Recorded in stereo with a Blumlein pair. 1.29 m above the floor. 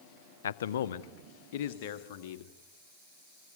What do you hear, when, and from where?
0.4 s a man speaking: 65° left, 0.7 m; by 2.5 s 50° left, 2 m